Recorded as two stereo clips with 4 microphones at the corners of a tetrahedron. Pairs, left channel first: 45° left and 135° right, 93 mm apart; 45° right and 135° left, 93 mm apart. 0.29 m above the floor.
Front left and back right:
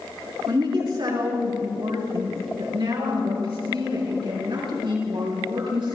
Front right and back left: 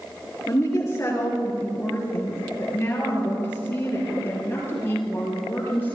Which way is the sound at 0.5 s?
100° right.